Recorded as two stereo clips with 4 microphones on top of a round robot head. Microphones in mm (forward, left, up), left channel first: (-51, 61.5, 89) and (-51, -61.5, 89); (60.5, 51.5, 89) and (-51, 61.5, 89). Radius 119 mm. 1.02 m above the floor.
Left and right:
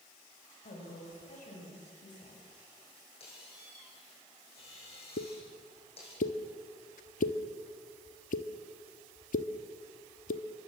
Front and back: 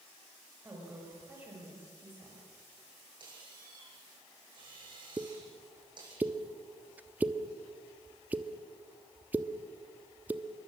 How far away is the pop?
About 1.1 m.